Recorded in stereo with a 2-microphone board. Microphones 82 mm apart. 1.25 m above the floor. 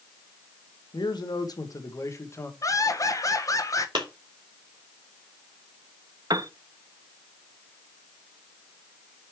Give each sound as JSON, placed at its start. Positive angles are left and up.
{"t": 0.9, "sound": "a man speaking", "side_deg": 70, "distance_m": 1.3}
{"t": 2.6, "sound": "laughter", "side_deg": 45, "distance_m": 1.4}
{"t": 4.0, "sound": "a clap", "side_deg": -75, "distance_m": 3.0}
{"t": 6.3, "sound": "a piano", "side_deg": -60, "distance_m": 0.5}